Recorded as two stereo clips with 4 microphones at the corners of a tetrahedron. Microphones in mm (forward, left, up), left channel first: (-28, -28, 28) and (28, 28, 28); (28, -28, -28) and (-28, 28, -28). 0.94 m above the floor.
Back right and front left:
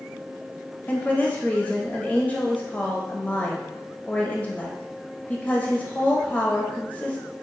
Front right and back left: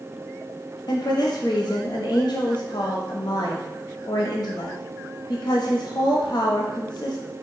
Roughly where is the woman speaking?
Ahead right.